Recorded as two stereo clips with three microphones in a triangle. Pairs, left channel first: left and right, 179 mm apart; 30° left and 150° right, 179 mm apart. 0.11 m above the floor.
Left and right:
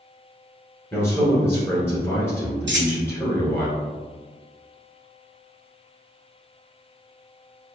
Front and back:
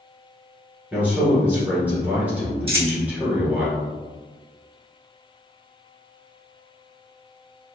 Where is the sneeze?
I don't hear a sneeze.